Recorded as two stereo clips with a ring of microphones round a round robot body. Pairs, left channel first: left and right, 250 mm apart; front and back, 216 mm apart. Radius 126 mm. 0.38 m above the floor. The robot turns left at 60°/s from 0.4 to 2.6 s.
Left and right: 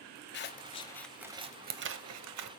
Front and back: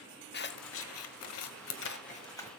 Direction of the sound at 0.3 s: 40° left.